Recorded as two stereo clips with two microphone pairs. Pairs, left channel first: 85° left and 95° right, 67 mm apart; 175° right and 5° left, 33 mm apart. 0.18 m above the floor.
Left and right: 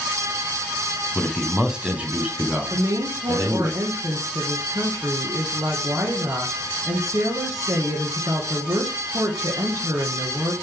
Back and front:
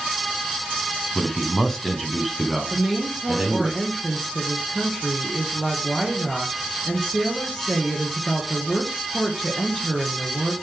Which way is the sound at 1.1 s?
150° left.